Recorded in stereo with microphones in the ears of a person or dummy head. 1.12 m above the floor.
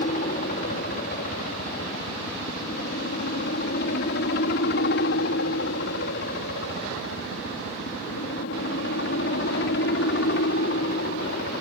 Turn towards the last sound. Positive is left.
turn(degrees=55)  # may be behind; listen again after turning